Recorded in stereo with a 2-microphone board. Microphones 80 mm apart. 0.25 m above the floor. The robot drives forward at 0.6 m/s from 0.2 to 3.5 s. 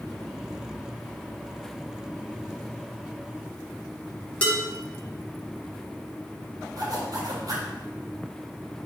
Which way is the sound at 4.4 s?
15° left (ahead or behind).